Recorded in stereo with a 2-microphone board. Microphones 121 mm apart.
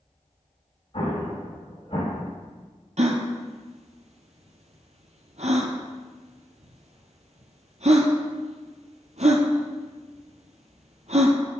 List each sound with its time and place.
0.9 s an explosion: 45° left (ahead or behind), 3.5 m
3.0 s a gasp: 65° right (ahead or behind), 1.0 m